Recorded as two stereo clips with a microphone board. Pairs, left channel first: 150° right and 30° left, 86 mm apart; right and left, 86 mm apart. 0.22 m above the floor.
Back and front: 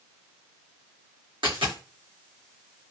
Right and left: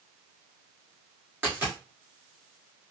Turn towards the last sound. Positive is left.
turn(degrees=25)